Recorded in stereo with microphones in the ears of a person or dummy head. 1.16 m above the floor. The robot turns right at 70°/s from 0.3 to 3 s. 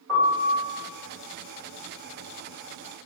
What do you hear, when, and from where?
0.1 s a piano: centre (ahead or behind), 1.2 m; by 0.7 s 25° left (ahead or behind), 1.2 m